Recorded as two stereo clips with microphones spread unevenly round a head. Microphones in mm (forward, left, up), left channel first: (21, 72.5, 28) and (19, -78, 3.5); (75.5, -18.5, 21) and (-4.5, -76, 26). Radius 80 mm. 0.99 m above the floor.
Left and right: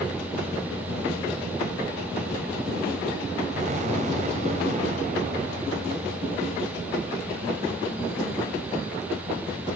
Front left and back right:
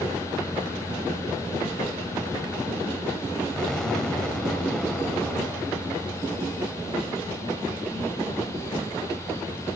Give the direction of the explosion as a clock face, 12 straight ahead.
2 o'clock.